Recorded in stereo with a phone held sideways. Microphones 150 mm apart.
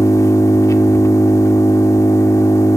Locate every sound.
0.0 s an engine running: 20° left (ahead or behind), 1.5 m